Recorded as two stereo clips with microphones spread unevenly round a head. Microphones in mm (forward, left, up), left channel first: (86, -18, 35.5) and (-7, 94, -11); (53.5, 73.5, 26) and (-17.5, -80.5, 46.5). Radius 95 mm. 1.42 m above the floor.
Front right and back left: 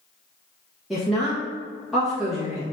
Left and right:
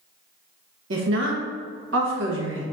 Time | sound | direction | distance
0.9 | a woman speaking | 140° right | 1.2 m